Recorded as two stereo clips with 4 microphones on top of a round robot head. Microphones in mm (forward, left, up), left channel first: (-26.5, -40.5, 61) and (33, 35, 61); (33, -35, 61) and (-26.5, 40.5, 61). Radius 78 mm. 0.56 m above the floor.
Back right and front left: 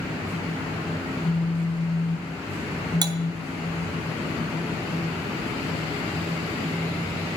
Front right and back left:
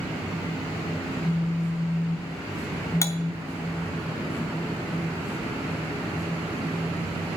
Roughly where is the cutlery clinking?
Ahead.